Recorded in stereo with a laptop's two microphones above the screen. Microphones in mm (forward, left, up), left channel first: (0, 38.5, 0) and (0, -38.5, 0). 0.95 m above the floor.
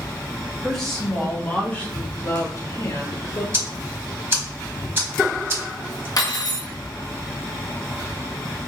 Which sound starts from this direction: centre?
A woman speaking, at 0.6 s.